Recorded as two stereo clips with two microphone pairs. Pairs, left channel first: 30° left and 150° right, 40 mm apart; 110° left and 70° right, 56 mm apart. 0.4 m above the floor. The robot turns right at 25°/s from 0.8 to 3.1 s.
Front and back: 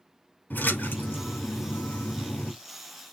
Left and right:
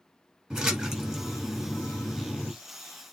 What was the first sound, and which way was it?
A splash, 10° left.